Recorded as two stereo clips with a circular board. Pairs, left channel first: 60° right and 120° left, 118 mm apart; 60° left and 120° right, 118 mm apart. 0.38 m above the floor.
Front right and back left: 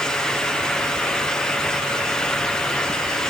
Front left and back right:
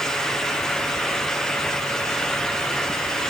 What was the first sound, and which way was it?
Only background noise.